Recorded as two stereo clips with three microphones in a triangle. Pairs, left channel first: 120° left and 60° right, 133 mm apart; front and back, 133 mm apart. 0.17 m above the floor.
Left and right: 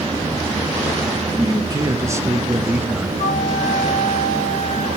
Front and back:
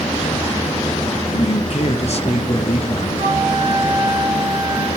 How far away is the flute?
About 6 m.